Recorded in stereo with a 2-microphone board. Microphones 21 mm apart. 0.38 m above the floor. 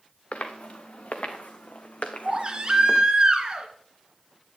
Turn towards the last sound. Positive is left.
turn(degrees=-35)  # may be behind; listen again after turning